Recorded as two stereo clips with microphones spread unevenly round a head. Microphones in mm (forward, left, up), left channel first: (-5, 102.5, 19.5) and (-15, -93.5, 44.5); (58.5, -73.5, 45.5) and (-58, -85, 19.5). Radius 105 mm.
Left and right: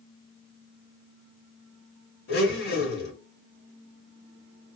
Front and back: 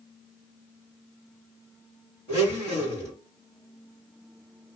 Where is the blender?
65° left, 2 m.